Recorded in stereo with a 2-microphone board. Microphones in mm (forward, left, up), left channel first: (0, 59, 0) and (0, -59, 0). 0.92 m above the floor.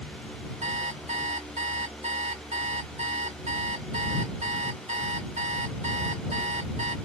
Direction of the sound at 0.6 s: 80° right.